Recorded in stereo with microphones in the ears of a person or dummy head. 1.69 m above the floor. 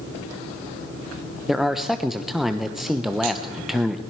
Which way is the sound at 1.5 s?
5° left (ahead or behind).